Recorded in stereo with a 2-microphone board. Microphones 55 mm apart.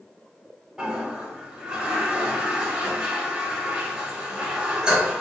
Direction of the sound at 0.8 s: 15° right (ahead or behind).